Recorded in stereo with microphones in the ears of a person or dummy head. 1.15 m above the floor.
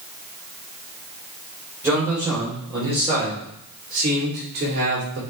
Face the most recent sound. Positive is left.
turn(degrees=-65)  # may be behind; listen again after turning